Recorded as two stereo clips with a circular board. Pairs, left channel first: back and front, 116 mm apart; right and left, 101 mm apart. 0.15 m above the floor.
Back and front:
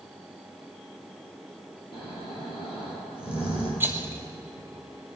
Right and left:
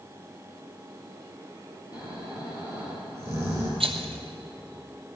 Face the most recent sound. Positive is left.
turn(degrees=70)